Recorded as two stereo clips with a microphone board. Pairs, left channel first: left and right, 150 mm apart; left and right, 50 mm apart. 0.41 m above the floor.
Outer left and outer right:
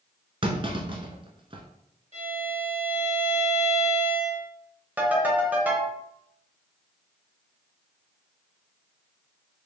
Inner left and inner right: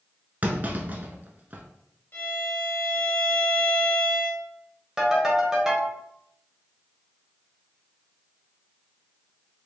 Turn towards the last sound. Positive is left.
turn(degrees=-10)  # may be behind; listen again after turning